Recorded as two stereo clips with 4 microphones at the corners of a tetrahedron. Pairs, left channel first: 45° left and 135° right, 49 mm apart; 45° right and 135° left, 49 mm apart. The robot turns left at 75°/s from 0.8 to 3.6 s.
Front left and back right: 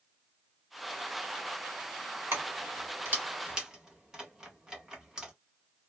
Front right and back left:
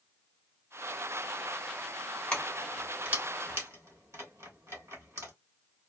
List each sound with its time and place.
2.3 s keys jangling: 115° right, 1.6 m; by 5.3 s 150° left, 1.6 m